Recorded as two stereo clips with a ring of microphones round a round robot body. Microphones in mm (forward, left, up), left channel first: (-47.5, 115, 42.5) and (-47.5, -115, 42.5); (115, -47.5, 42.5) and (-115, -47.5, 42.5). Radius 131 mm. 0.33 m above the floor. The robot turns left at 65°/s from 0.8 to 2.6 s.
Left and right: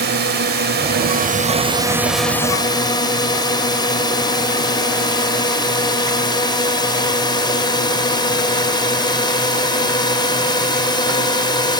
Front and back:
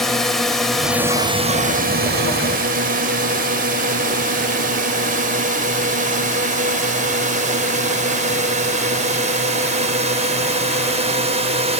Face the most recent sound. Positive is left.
turn(degrees=145)